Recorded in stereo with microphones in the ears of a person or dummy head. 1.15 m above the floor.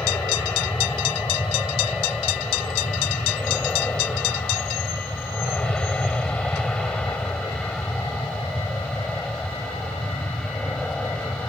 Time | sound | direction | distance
0.0 | an aircraft | 10° left (ahead or behind) | ?